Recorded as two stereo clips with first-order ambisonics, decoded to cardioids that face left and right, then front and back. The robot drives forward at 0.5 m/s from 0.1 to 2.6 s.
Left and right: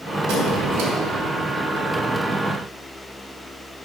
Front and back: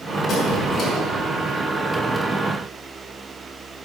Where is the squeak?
65° right, 2.5 m; by 0.9 s 70° right, 2.5 m.